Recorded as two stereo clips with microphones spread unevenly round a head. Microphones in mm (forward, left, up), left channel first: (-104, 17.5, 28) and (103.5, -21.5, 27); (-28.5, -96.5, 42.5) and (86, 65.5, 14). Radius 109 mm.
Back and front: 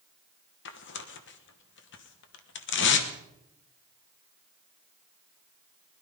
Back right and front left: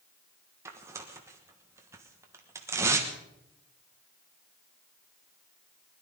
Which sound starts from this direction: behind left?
Tearing paper, at 0.7 s.